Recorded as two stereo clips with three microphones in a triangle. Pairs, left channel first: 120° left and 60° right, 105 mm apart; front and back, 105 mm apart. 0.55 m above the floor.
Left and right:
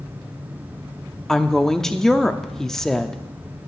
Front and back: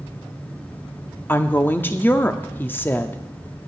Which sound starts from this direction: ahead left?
A woman speaking, at 1.3 s.